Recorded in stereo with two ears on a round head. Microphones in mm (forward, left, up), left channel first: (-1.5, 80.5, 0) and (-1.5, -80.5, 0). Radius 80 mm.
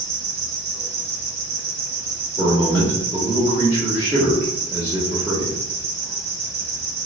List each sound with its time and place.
0.0 s an insect: 60° right (ahead or behind), 1.1 m
2.4 s a man speaking: 20° right (ahead or behind), 1.0 m